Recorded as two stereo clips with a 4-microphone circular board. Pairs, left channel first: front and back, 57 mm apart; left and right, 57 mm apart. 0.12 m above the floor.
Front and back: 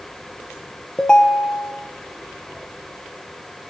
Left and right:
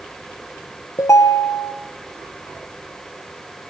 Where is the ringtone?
75° left, 2.0 m.